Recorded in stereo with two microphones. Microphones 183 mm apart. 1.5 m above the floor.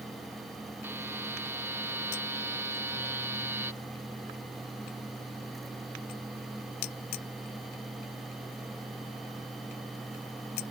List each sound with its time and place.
0.8 s a buzzer: 10° right (ahead or behind)